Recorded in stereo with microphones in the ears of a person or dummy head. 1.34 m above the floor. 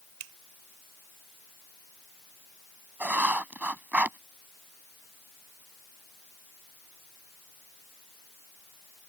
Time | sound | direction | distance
0.2 | a finger snap | 85° right | ?
3.0 | writing | 10° right (ahead or behind) | ?